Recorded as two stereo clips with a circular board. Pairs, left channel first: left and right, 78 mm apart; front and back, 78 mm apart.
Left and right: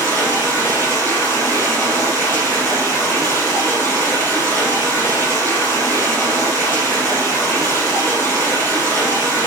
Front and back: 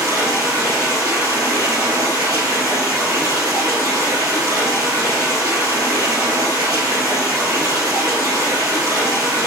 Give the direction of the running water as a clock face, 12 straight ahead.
7 o'clock.